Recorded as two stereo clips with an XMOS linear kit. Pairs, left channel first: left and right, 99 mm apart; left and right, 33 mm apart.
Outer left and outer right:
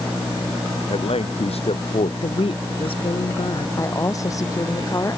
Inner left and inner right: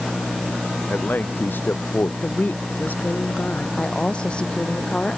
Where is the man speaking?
85° left.